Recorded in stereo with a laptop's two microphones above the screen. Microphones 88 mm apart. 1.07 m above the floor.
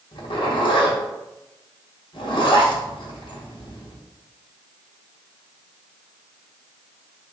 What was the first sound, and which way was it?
A zipper, 65° left (ahead or behind).